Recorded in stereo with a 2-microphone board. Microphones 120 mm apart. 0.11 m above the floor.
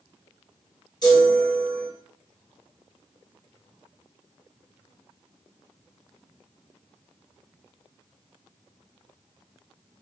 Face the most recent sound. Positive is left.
turn(degrees=35)  # may be behind; listen again after turning